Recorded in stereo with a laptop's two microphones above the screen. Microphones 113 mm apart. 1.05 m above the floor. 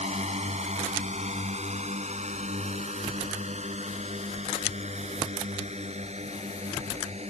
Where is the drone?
75° right (ahead or behind); by 7.3 s 70° right (ahead or behind).